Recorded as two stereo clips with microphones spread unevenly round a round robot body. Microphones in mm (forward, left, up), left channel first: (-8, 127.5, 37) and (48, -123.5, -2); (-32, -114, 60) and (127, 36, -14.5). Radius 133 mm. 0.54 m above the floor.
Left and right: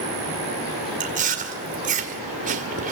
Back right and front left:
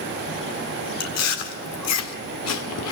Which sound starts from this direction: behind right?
Chewing, at 1.0 s.